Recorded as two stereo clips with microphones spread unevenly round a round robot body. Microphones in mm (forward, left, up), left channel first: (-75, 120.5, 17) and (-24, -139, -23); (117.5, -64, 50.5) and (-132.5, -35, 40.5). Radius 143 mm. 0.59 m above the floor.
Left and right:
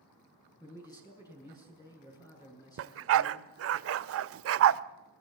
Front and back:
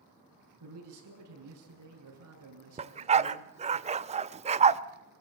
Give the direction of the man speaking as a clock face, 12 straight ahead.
6 o'clock.